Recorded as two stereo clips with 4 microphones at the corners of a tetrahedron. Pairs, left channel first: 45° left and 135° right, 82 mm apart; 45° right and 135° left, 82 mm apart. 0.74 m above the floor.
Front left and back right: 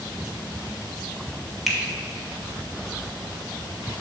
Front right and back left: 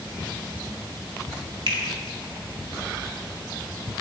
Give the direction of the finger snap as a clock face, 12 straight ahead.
7 o'clock.